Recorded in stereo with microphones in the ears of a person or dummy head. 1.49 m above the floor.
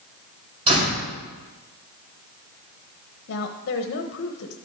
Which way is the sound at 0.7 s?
35° right (ahead or behind).